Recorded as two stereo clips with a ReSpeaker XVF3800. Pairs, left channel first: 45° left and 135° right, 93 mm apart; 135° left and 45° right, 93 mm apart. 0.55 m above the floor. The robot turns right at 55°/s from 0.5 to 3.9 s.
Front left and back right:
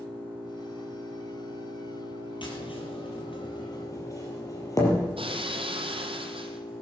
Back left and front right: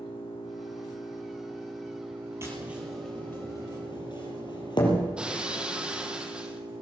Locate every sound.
0.0 s an engine running: 155° left, 8 m; by 6.8 s 20° right, 8 m
2.4 s tapping: 15° left, 4.5 m; by 5.1 s 100° left, 4.5 m
5.2 s breaking glass: 125° right, 1.7 m